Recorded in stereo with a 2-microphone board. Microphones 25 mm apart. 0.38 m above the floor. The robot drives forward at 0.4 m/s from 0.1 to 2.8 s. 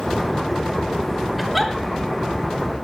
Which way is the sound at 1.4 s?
5° right (ahead or behind).